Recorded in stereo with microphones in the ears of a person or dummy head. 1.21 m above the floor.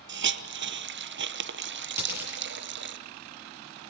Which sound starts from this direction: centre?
A dropped coin, at 2.0 s.